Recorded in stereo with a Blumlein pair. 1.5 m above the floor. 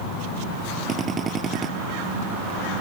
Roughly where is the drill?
Ahead.